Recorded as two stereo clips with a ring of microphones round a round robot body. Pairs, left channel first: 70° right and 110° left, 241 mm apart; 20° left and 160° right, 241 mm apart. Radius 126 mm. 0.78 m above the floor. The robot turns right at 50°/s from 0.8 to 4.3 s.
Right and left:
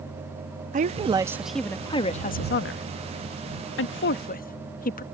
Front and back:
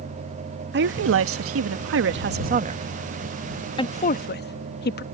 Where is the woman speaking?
165° left; by 5.0 s 20° right.